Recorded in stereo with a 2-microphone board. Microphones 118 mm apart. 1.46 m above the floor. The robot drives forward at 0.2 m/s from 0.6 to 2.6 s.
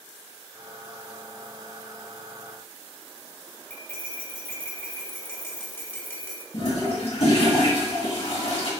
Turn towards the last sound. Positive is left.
turn(degrees=55)  # may be behind; listen again after turning